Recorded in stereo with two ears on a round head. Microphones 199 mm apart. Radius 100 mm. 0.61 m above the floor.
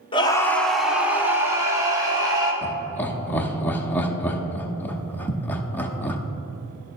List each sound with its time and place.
0.1 s a scream: 25° left (ahead or behind), 0.9 m; by 2.5 s 20° right (ahead or behind), 3 m
2.6 s laughter: 10° left (ahead or behind), 0.9 m